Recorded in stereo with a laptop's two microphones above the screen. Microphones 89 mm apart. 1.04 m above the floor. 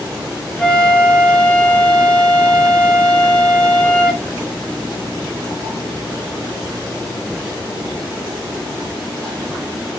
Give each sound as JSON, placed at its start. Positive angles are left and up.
{"t": 0.6, "sound": "a flute", "side_deg": 15, "distance_m": 1.2}